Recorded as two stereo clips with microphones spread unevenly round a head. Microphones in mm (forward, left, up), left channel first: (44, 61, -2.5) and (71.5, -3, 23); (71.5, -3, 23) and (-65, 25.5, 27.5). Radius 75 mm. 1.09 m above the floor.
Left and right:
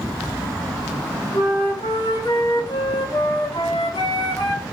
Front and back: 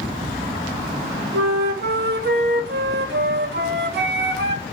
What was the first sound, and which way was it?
A flute, 175° right.